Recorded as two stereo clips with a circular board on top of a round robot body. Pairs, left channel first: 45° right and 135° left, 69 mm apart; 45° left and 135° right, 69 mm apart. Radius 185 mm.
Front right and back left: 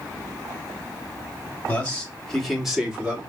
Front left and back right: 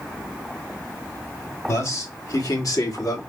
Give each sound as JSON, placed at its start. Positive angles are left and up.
{"t": 1.7, "sound": "a man speaking", "azimuth_deg": 15, "distance_m": 2.0}